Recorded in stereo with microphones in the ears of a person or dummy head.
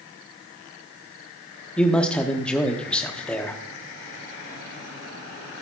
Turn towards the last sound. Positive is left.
turn(degrees=5)  # may be behind; listen again after turning